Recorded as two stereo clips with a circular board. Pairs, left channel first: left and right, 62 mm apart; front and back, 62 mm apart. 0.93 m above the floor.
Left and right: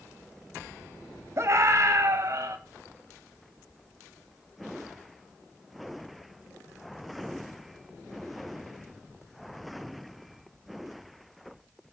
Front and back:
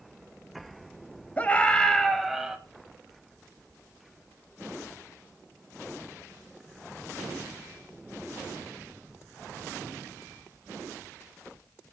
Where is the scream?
55° right, 1.5 m; by 2.6 s 100° right, 1.3 m.